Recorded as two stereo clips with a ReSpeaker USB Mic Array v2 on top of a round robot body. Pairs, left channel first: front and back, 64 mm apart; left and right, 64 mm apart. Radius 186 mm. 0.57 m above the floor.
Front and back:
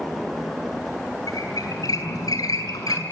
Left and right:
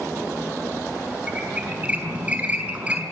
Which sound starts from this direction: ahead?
A squeak, at 1.3 s.